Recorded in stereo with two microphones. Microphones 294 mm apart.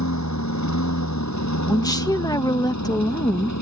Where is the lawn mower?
85° left; by 3.6 s 80° left.